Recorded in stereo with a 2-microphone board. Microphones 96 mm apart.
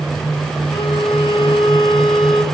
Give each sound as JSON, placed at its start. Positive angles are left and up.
{"t": 0.7, "sound": "a violin", "side_deg": 80, "distance_m": 1.9}